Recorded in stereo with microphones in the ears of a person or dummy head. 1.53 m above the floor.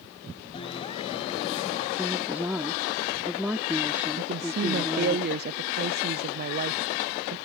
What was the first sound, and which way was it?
A clap, 25° left (ahead or behind).